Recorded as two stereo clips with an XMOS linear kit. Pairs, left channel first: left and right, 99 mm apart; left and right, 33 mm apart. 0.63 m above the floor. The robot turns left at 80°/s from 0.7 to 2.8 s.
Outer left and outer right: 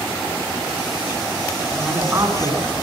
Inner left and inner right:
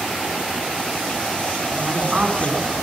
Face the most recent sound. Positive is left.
turn(degrees=-75)